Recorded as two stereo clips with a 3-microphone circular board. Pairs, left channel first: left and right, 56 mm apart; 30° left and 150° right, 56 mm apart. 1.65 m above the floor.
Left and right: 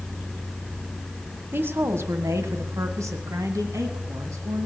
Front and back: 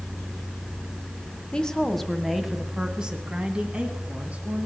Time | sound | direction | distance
1.5 | a woman speaking | 40° right | 1.2 m